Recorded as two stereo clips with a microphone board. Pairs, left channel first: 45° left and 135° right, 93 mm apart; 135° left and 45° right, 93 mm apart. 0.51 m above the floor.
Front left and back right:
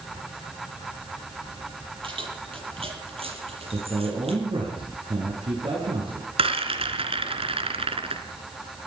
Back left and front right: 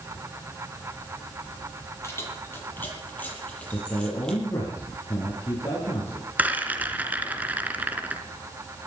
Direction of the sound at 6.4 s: 120° right.